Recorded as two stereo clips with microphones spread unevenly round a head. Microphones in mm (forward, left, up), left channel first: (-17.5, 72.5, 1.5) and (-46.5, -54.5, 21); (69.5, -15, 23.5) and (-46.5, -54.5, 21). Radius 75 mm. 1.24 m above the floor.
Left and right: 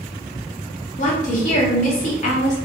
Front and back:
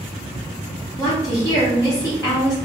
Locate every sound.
1.0 s a woman speaking: 85° left, 1.4 m